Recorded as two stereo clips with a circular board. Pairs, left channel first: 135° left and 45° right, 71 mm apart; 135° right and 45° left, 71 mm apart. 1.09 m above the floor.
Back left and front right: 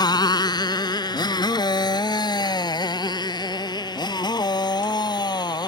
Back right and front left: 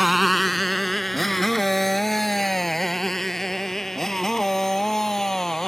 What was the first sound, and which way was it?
A motorcycle, 135° left.